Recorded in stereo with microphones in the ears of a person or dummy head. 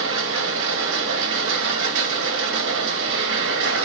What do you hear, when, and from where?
0.0 s a machine running: 60° right (ahead or behind), 1.6 m